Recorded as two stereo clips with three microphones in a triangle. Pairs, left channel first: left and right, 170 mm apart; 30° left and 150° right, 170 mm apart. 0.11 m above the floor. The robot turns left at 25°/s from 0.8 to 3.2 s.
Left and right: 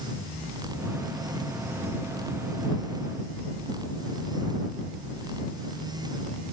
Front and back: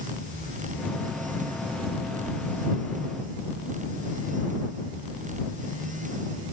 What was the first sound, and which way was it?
Only background noise.